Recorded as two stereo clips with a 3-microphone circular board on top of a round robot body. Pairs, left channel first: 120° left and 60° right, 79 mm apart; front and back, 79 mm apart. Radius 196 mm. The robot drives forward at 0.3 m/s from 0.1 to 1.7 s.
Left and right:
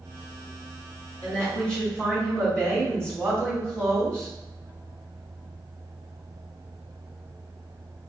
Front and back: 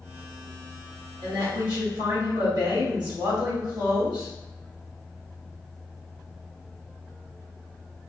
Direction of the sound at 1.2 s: 165° right.